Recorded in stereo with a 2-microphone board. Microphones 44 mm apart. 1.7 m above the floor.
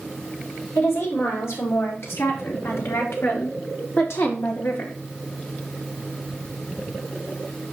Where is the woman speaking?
85° left, 4.5 m; by 5.0 s 60° left (ahead or behind), 2.5 m.